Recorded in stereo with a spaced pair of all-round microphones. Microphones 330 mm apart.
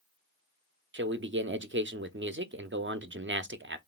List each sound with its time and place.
0.9 s a man speaking: 35° right (ahead or behind), 0.6 m